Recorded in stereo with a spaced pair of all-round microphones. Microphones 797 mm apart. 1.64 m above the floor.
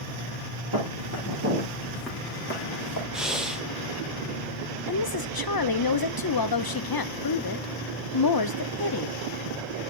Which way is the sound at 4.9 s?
30° left (ahead or behind).